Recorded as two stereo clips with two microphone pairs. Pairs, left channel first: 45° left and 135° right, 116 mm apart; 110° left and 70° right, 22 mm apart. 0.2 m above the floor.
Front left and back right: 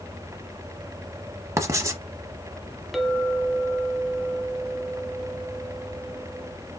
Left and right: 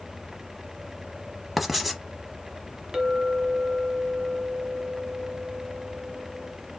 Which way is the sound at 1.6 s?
155° right.